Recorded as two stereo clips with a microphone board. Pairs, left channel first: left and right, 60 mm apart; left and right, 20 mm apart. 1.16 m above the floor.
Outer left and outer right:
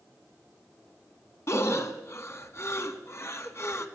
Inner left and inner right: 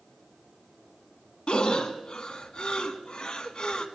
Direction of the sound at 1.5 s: 50° left (ahead or behind).